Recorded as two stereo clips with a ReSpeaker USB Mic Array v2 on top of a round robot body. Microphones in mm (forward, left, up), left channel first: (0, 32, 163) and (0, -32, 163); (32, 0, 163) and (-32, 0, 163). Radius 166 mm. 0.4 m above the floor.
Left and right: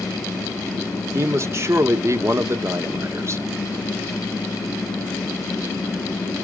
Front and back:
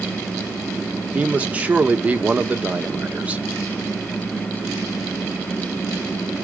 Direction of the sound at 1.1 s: 115° right.